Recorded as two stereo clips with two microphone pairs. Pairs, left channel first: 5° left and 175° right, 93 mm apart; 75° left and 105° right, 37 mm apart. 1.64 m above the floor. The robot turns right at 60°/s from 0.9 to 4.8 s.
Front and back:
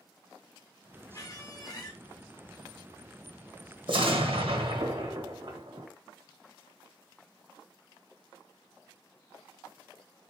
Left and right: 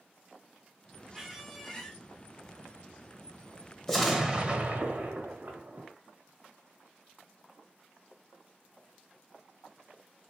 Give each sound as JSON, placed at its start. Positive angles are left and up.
{"t": 1.1, "sound": "a squeak", "azimuth_deg": -20, "distance_m": 1.1}
{"t": 3.9, "sound": "an explosion", "azimuth_deg": 160, "distance_m": 1.2}